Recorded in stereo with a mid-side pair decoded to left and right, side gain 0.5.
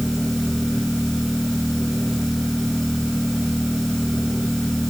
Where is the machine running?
5° left.